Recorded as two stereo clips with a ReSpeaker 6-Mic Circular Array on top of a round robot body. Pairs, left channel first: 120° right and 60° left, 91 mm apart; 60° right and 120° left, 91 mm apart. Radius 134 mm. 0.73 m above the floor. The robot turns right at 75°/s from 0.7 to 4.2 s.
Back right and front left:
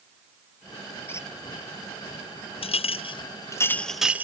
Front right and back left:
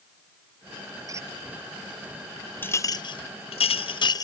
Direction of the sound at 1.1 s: 175° left.